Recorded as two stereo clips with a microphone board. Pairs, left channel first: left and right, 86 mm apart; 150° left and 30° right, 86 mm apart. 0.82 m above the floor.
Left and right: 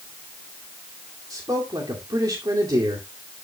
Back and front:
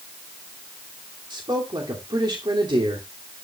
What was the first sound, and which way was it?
A man speaking, 50° right.